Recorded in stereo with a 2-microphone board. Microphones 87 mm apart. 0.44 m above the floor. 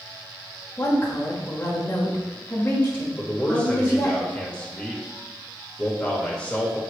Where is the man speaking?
10° left (ahead or behind), 1.1 m.